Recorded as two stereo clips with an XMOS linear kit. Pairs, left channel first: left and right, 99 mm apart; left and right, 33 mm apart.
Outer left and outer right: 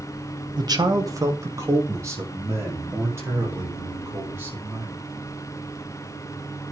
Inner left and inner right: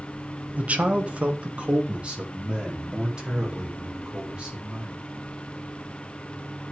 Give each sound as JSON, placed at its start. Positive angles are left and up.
{"t": 0.6, "sound": "a man speaking", "side_deg": -45, "distance_m": 1.4}